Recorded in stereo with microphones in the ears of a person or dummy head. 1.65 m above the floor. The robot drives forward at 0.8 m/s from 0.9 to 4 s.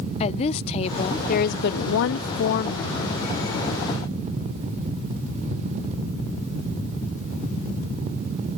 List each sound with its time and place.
0.2 s a woman speaking: 35° left (ahead or behind)